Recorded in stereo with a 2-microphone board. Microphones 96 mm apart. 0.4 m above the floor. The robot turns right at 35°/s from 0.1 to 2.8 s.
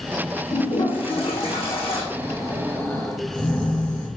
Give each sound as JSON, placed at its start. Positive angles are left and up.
{"t": 0.5, "sound": "a toilet flushing", "azimuth_deg": 55, "distance_m": 4.0}
{"t": 2.1, "sound": "snoring", "side_deg": 40, "distance_m": 4.5}